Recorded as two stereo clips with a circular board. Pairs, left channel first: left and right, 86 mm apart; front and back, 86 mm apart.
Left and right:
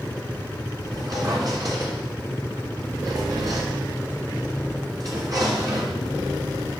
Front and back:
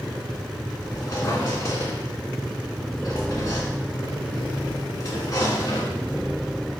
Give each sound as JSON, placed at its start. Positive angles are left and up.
{"t": 0.8, "sound": "a squeak", "azimuth_deg": -50, "distance_m": 1.8}